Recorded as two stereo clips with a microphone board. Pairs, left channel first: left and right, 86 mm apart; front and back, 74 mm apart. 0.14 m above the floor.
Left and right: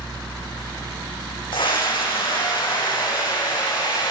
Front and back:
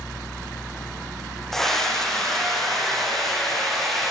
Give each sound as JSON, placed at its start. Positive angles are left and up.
{"t": 1.5, "sound": "a scream", "azimuth_deg": 80, "distance_m": 8.5}